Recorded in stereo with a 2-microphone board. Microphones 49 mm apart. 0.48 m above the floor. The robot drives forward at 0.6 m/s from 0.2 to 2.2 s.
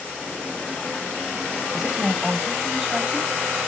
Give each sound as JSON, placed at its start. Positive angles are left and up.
{"t": 1.7, "sound": "a woman speaking", "side_deg": -15, "distance_m": 3.0}